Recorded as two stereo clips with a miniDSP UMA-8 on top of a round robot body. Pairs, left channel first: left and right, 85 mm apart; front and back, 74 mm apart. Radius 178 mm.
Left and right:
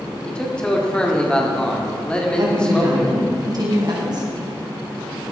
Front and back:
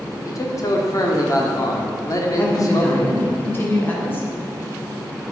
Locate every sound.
0.2 s a man speaking: 15° left, 1.9 m
2.4 s a woman speaking: 60° right, 2.5 m